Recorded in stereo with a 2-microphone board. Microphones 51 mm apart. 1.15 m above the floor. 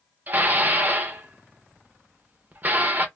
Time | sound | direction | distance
0.3 | dishes clattering | 35° right (ahead or behind) | 0.7 m